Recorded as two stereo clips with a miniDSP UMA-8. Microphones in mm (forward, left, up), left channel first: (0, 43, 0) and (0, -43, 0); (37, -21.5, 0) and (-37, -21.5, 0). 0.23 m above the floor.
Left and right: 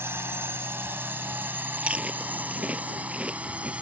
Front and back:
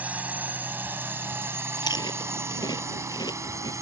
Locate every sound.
0.0 s a drone: 125° right; by 3.8 s 160° right
1.8 s chewing: 15° right